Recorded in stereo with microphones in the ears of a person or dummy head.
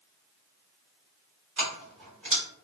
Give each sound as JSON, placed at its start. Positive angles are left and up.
{"t": 1.6, "sound": "keys jangling", "side_deg": -55, "distance_m": 1.3}